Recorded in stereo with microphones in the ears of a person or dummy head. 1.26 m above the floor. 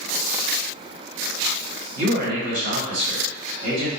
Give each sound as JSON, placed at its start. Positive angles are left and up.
{"t": 1.9, "sound": "a man speaking", "side_deg": -85, "distance_m": 1.7}